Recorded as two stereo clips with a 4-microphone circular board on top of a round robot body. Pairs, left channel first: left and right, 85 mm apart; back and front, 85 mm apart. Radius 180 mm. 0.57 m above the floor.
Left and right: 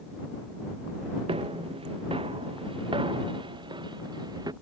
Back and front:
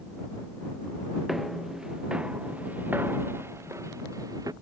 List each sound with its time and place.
1.3 s footsteps: 90° right; by 4.5 s 50° right